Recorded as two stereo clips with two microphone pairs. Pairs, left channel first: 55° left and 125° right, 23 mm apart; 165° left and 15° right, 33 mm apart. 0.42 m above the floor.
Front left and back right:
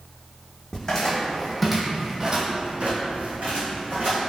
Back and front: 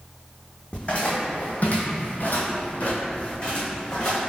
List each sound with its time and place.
0.7 s footsteps: 115° left, 1.3 m; by 4.2 s 125° right, 1.7 m